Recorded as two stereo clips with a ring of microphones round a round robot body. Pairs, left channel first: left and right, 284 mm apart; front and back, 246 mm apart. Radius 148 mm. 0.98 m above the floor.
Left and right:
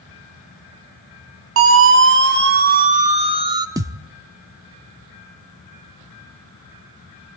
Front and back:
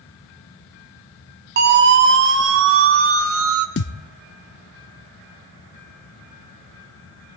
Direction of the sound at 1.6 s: 130° right.